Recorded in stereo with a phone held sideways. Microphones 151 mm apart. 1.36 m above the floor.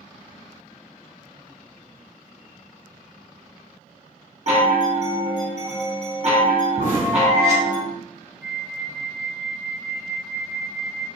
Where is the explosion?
60° right (ahead or behind), 1.8 m.